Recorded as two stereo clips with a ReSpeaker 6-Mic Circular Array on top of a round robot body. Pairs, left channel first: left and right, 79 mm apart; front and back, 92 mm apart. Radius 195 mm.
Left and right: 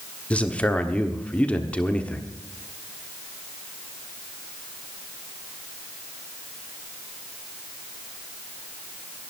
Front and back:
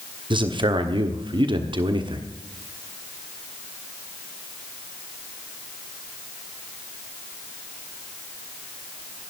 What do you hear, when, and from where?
0.3 s a man speaking: 160° left, 1.4 m